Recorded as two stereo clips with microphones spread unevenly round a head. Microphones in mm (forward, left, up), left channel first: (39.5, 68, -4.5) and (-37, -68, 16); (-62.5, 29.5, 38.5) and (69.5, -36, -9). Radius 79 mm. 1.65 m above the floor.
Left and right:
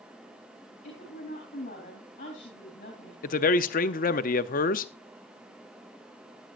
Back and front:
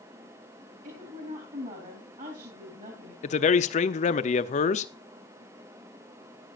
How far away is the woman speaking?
About 3.5 m.